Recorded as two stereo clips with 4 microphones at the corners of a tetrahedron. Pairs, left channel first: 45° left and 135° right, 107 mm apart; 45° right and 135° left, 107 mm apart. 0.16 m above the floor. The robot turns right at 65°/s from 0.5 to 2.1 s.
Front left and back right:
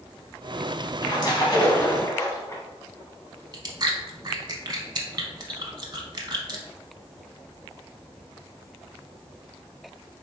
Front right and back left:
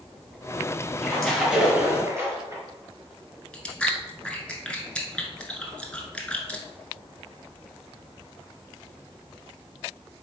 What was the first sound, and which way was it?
A splash, 25° left.